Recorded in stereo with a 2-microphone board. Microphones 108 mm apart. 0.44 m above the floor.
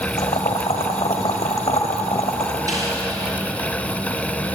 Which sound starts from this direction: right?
A snare drum, at 2.7 s.